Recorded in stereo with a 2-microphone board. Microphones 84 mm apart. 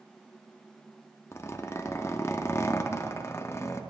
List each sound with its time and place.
1.3 s a zipper: 30° left (ahead or behind), 0.6 m